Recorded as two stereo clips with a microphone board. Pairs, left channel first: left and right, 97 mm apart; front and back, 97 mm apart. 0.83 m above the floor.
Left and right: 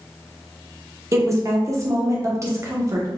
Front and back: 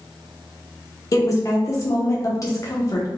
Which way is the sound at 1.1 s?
40° right.